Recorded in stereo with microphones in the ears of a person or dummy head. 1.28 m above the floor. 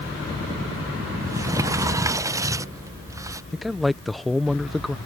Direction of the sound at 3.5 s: Centre (ahead or behind).